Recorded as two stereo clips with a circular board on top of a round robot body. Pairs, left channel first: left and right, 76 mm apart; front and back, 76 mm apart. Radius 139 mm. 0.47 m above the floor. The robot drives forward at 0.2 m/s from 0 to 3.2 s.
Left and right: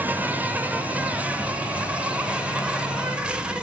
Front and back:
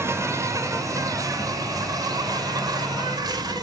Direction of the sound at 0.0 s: 145° right.